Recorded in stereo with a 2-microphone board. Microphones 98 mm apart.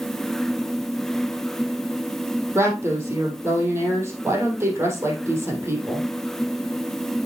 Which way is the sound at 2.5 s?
25° right (ahead or behind).